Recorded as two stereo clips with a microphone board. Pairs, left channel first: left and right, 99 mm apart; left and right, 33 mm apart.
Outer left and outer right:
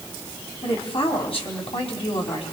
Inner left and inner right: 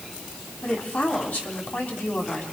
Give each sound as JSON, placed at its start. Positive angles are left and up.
{"t": 0.6, "sound": "a woman speaking", "side_deg": 70, "distance_m": 4.0}